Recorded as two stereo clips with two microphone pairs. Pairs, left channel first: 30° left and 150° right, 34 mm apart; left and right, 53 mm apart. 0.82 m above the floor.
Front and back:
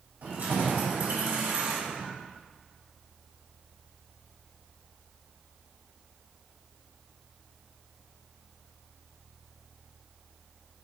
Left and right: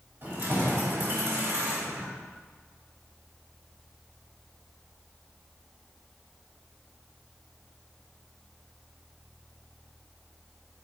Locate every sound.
0.2 s keys jangling: 140° right, 2.5 m; by 2.1 s 125° right, 1.3 m